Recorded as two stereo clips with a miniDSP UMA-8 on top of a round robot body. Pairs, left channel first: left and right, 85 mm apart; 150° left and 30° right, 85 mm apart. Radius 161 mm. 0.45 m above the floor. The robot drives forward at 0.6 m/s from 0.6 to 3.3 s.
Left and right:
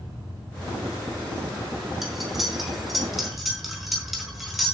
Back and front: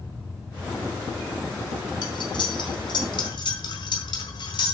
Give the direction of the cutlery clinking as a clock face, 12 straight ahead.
6 o'clock.